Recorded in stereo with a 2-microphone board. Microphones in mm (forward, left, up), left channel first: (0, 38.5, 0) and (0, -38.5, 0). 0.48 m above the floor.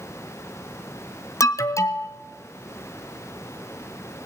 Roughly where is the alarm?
Left.